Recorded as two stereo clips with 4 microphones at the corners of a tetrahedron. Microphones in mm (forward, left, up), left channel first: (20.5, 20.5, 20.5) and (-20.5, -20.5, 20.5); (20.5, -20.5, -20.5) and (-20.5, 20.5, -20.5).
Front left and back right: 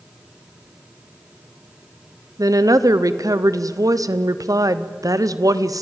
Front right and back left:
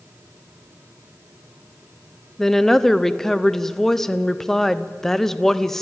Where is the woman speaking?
130° right, 0.9 m.